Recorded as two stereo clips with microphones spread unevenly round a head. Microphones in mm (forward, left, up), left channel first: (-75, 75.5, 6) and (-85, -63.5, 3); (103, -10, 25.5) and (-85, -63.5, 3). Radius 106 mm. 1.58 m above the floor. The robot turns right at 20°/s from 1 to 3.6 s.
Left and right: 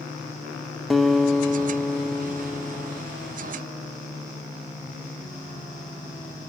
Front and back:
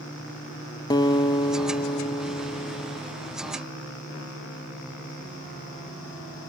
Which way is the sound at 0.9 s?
Straight ahead.